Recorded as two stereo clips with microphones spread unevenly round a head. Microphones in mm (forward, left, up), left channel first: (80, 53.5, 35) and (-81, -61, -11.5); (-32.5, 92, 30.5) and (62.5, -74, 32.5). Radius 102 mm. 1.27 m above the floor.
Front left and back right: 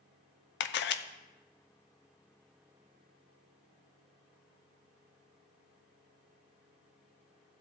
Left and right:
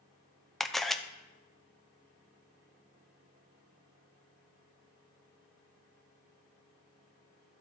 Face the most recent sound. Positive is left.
turn(degrees=30)